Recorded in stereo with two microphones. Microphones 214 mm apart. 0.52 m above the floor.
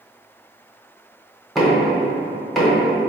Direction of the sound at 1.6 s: Centre (ahead or behind).